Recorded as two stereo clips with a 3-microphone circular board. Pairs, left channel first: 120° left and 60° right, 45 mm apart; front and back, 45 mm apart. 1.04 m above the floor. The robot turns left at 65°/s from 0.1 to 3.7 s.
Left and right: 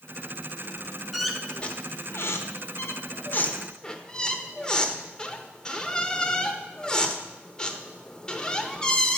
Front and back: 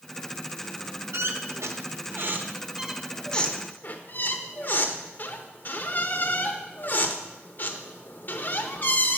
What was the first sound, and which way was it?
A squeak, 145° right.